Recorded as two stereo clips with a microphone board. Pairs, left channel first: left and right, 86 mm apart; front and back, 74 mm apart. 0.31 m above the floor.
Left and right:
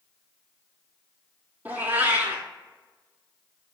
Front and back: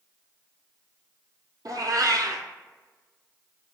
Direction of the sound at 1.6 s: 160° right.